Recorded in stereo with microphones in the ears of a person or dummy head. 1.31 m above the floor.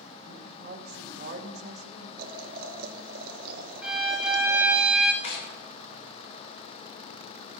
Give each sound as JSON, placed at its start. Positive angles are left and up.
{"t": 0.2, "sound": "a woman speaking", "side_deg": -60, "distance_m": 2.5}
{"t": 2.2, "sound": "boiling", "side_deg": -55, "distance_m": 1.2}
{"t": 3.8, "sound": "a violin", "side_deg": -5, "distance_m": 1.2}
{"t": 5.2, "sound": "tearing paper", "side_deg": 75, "distance_m": 3.0}